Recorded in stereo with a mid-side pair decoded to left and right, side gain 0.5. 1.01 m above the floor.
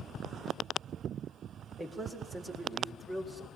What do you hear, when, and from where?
1.8 s a man speaking: 20° right, 4 m